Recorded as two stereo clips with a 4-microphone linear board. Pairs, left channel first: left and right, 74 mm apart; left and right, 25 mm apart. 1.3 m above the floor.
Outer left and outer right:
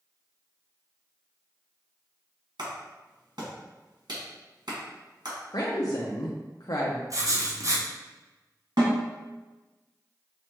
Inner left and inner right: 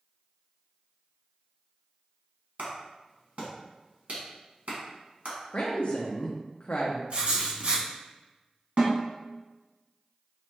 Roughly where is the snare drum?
Right.